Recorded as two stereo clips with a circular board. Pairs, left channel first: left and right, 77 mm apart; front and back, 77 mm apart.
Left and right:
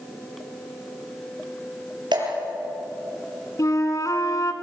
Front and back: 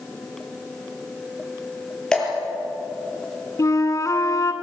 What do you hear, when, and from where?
2.1 s dripping: 80° right, 5 m
3.6 s a flute: 45° left, 1.5 m